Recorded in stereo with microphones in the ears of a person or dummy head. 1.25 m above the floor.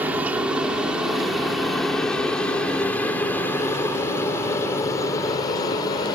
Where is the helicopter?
10° right (ahead or behind); by 6.2 s 25° left (ahead or behind).